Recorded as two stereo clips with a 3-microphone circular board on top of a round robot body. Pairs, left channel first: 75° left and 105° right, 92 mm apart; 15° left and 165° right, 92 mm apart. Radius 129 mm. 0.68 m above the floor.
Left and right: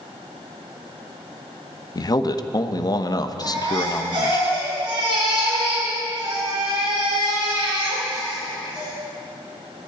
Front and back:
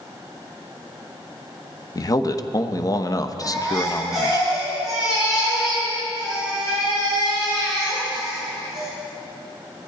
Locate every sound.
1.9 s a man speaking: 45° left, 1.0 m
3.4 s a baby crying: 80° right, 7 m